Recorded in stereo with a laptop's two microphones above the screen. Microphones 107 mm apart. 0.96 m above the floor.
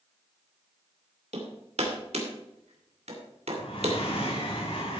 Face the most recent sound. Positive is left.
turn(degrees=60)  # may be behind; listen again after turning